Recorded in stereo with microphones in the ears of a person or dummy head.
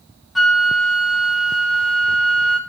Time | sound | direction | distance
0.3 | a flute | centre (ahead or behind) | 0.8 m